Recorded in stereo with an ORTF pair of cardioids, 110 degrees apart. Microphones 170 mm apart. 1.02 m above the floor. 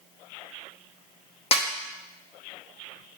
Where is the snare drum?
35° left, 0.7 m.